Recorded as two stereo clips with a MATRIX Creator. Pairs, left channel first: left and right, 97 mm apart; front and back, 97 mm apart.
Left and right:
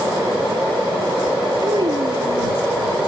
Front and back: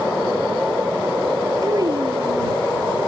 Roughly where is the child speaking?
Behind right.